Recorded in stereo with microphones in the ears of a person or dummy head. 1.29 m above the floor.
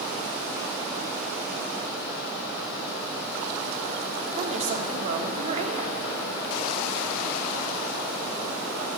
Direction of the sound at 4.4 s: 35° right (ahead or behind).